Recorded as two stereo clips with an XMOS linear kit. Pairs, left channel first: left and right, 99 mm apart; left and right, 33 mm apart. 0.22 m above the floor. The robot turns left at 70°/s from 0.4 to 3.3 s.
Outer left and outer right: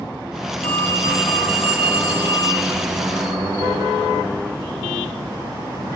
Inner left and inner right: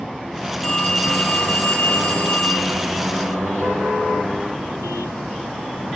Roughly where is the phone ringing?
Behind.